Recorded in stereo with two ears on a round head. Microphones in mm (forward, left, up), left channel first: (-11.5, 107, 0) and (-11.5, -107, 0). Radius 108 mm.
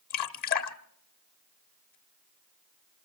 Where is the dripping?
40° left (ahead or behind), 0.8 m.